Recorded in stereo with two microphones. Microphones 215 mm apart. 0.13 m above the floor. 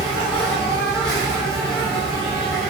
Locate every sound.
0.0 s an insect: 5° left (ahead or behind), 1.5 m